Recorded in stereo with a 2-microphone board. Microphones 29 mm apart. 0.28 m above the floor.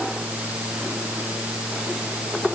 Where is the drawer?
No drawer in this recording.